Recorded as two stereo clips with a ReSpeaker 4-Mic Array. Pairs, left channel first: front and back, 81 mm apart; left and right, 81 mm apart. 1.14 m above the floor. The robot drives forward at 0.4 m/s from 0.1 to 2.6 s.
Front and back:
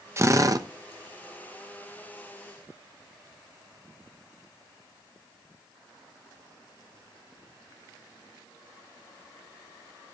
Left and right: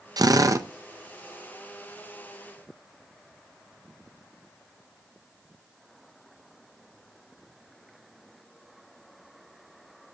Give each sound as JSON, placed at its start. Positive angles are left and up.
{"t": 0.2, "sound": "a drill", "azimuth_deg": -125, "distance_m": 0.5}